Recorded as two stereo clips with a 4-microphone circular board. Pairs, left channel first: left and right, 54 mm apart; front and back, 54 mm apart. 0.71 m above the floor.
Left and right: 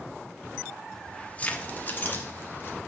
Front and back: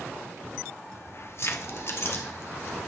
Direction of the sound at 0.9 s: 15° left.